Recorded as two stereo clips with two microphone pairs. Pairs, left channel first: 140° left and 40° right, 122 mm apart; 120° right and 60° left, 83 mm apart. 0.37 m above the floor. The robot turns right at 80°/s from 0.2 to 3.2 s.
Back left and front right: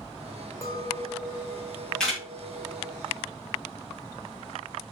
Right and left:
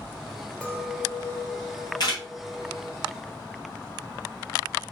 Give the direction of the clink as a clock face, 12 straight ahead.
6 o'clock.